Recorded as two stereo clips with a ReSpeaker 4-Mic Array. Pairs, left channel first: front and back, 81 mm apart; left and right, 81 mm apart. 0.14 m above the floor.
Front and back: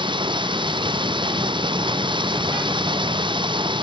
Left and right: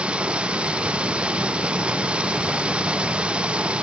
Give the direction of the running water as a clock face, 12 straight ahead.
6 o'clock.